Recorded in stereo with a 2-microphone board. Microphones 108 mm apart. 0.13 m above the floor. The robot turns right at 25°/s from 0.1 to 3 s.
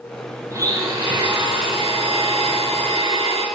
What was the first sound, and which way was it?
A blender, 150° right.